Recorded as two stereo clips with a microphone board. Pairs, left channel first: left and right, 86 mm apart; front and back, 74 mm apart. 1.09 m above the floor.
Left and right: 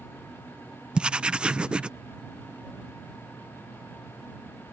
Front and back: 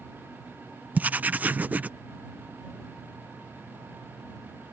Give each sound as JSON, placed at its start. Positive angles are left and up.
{"t": 0.9, "sound": "writing", "azimuth_deg": -150}